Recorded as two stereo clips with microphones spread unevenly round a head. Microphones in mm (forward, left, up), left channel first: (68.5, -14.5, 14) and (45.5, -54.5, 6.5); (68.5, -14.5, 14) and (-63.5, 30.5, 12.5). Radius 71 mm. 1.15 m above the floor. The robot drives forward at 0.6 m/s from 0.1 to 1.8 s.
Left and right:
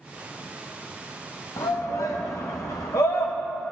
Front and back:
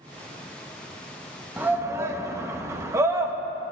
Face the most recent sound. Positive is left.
turn(degrees=90)